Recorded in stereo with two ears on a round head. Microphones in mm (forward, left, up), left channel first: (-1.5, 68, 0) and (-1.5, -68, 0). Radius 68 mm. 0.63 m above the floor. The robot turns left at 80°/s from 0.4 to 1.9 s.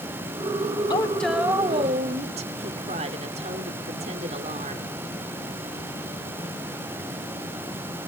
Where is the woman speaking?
30° left, 1.9 m; by 4.8 s 50° right, 1.9 m.